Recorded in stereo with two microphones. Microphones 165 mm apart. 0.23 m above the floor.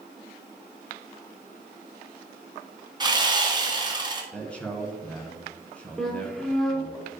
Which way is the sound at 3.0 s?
25° right (ahead or behind).